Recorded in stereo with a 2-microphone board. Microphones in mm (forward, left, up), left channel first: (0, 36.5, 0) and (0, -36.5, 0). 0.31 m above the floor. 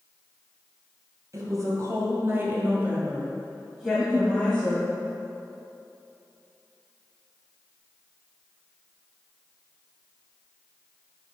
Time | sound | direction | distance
1.3 | a woman speaking | 50° right (ahead or behind) | 1.9 m
3.9 | a giggle | 15° right (ahead or behind) | 0.7 m